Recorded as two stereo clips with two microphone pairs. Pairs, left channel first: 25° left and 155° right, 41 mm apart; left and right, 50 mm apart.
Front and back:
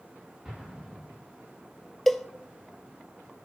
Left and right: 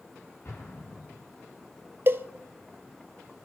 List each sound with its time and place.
0.5 s an explosion: 135° left, 7 m
2.1 s a cowbell: 55° right, 0.6 m